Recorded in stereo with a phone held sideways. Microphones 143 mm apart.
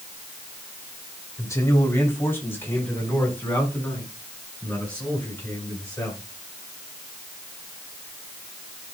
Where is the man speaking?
20° left (ahead or behind), 3 m; by 6.2 s 10° left (ahead or behind), 10.5 m.